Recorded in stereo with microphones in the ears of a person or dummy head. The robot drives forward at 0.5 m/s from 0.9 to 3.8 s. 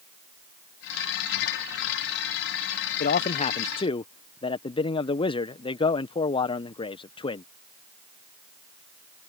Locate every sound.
3.0 s a man speaking: 50° left (ahead or behind); by 7.5 s 35° left (ahead or behind)